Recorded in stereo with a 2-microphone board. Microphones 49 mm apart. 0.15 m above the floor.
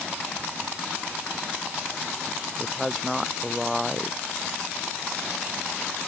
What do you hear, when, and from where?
2.6 s a woman speaking: centre (ahead or behind)